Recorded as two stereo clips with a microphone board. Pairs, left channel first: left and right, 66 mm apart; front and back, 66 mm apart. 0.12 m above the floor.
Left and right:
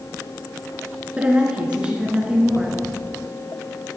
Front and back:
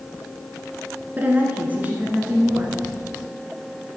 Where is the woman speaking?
145° right, 1.1 m.